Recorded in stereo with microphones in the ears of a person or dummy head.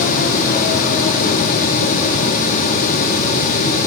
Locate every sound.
Only background noise.